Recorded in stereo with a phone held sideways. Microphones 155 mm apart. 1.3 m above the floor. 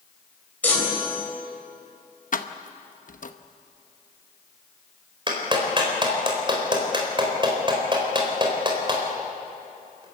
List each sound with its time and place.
0.6 s a chime: 10° left (ahead or behind), 4 m
2.3 s keys jangling: 60° left (ahead or behind), 0.9 m
5.3 s a clap: 35° right (ahead or behind), 4 m